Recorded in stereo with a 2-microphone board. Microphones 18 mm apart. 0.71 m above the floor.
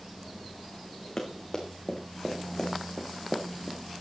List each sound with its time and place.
1.2 s running footsteps: 30° left (ahead or behind), 4 m; by 3.8 s 10° left (ahead or behind), 3 m